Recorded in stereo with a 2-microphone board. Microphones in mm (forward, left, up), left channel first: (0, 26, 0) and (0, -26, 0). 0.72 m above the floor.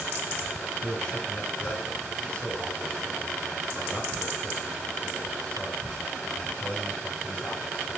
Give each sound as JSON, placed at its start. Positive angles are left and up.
{"t": 0.8, "sound": "a man speaking", "side_deg": 30, "distance_m": 3.5}